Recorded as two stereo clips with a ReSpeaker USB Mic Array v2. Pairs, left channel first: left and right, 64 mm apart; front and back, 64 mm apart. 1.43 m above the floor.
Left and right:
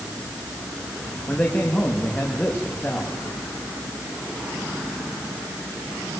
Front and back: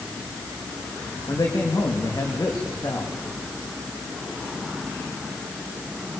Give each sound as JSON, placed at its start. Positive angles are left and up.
{"t": 1.3, "sound": "a man speaking", "azimuth_deg": 20, "distance_m": 3.0}